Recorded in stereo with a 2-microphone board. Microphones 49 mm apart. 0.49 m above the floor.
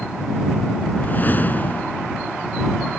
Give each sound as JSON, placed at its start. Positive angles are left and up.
{"t": 0.9, "sound": "a whoosh", "side_deg": 35}